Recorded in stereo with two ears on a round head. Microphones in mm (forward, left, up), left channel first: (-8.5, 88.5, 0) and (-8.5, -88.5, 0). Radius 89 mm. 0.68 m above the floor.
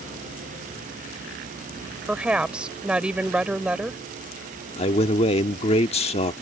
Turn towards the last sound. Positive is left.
turn(degrees=30)  # may be behind; listen again after turning